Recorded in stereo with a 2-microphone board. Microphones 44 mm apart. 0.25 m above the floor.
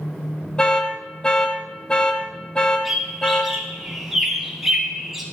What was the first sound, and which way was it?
An alarm, 20° left (ahead or behind).